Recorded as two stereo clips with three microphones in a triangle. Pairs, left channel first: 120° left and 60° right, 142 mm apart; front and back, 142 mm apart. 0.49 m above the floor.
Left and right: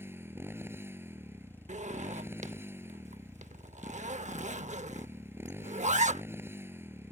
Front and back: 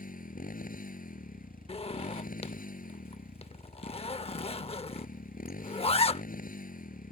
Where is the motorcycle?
15° left.